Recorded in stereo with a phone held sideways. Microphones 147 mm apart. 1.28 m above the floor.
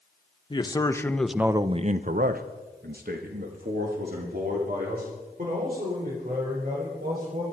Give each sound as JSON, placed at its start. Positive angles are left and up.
{"t": 0.5, "sound": "a man speaking", "side_deg": 30, "distance_m": 1.2}